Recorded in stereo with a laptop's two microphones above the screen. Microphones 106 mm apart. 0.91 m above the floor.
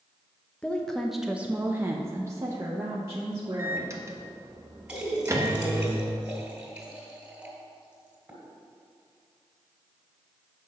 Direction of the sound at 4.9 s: 15° right (ahead or behind).